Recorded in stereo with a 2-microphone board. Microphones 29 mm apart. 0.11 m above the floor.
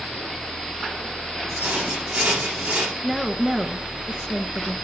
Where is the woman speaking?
15° right (ahead or behind), 1.1 m.